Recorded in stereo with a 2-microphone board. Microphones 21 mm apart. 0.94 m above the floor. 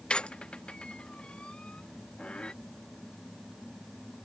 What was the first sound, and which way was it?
A squeak, 60° left (ahead or behind).